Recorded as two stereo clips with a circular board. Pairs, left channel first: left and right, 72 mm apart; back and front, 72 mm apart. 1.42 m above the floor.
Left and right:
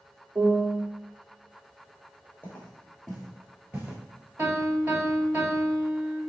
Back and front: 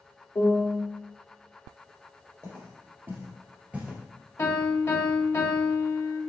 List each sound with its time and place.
0.3 s a piano: 140° right, 1.1 m
2.4 s footsteps: 35° left, 2 m; by 4.0 s 65° right, 1.5 m
4.4 s a piano: 135° right, 1.6 m